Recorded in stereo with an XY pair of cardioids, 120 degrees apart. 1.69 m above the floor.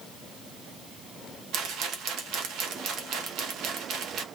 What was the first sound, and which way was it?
A rattle, 70° right.